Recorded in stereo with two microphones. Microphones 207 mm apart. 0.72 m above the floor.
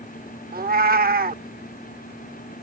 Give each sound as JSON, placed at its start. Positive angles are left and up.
{"t": 0.5, "sound": "a cat meowing", "side_deg": -45}